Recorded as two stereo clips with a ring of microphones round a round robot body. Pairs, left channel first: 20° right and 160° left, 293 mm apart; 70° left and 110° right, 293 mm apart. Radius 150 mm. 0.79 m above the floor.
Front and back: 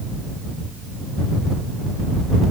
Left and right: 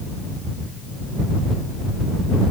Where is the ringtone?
I don't hear a ringtone.